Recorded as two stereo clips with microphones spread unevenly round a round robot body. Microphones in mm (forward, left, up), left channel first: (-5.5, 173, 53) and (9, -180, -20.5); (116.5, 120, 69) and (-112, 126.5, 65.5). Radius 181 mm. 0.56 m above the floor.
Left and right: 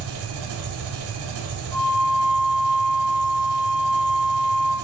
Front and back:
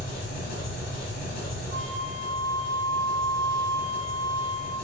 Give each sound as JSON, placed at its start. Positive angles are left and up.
{"t": 0.0, "sound": "an engine running", "azimuth_deg": -35, "distance_m": 1.1}
{"t": 1.7, "sound": "a flute", "azimuth_deg": 165, "distance_m": 1.0}